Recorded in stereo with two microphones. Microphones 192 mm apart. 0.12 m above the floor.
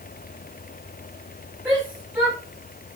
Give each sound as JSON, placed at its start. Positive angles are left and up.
{"t": 1.6, "sound": "a shout", "side_deg": -10, "distance_m": 8.0}